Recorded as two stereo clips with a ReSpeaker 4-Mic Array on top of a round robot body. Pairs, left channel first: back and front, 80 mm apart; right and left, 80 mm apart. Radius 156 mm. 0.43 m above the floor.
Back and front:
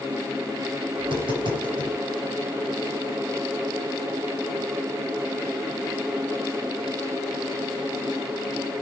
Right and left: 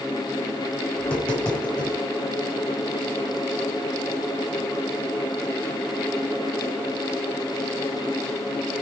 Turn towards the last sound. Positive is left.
turn(degrees=-10)